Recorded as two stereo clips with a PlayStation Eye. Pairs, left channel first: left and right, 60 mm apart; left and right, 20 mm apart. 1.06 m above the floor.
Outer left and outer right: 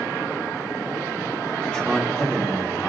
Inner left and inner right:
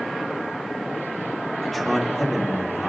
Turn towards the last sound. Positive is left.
turn(degrees=10)  # may be behind; listen again after turning